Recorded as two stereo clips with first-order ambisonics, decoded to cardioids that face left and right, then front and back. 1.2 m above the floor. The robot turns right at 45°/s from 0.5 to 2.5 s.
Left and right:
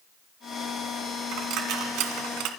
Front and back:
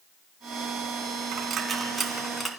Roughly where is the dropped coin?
Behind right.